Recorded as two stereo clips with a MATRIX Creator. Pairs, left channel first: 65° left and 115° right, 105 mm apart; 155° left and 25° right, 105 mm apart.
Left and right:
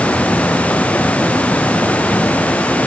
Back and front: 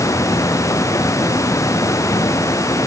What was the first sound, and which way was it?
Only background noise.